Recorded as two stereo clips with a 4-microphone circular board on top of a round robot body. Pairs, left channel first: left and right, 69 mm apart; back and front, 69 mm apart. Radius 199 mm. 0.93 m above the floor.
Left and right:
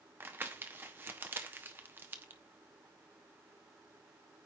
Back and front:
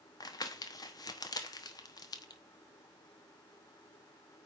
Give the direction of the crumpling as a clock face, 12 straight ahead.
5 o'clock.